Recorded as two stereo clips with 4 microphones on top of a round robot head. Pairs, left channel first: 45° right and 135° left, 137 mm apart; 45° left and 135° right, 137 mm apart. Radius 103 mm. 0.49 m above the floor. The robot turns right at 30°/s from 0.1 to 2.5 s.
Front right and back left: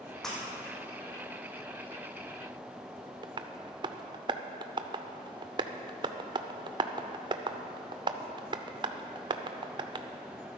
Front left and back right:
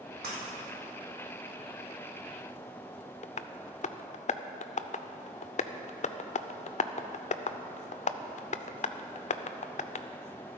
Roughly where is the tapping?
Left.